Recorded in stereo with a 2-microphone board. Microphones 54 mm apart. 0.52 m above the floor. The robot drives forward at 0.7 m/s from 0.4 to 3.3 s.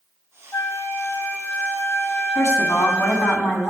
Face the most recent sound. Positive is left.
turn(degrees=55)  # may be behind; listen again after turning